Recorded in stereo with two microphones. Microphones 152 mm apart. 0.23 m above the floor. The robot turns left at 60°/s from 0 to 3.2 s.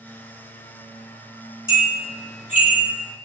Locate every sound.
1.7 s a bell: 25° left (ahead or behind), 1.3 m; by 2.9 s 50° left (ahead or behind), 1.3 m